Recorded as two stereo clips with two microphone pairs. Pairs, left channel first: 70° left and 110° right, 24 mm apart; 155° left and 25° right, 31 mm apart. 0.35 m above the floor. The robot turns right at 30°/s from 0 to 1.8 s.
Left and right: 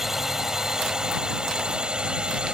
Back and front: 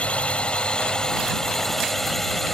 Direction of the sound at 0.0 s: 175° left.